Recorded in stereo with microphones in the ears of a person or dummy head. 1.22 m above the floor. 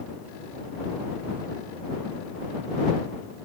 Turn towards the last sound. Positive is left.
No sound to turn to.